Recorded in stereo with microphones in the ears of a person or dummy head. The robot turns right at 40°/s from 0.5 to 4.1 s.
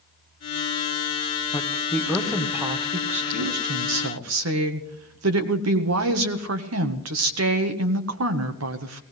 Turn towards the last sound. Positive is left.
turn(degrees=-105)